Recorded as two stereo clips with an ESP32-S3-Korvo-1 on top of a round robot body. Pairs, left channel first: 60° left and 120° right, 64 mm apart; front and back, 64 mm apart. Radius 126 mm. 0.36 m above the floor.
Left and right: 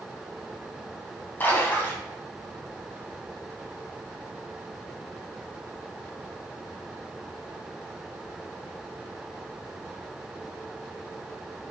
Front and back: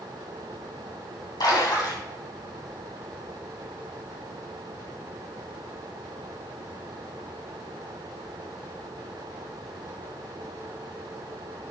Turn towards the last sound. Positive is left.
turn(degrees=0)